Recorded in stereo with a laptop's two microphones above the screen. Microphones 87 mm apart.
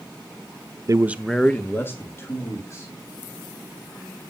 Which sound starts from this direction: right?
A man speaking, at 0.9 s.